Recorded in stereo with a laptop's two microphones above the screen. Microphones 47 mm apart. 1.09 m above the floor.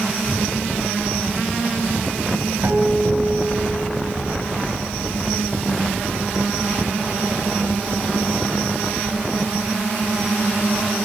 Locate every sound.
2.6 s a guitar: 60° right (ahead or behind), 5 m